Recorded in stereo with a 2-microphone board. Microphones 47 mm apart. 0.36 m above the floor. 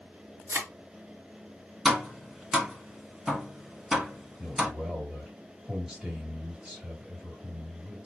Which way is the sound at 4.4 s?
10° right (ahead or behind).